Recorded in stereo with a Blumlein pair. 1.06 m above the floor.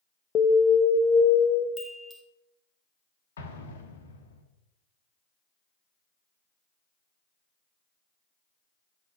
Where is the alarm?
25° left, 0.7 m.